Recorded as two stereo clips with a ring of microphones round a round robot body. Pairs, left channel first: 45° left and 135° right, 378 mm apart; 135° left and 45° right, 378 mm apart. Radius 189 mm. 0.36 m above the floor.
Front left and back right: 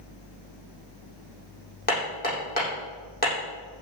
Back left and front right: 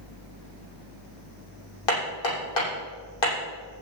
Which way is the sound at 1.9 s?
115° left.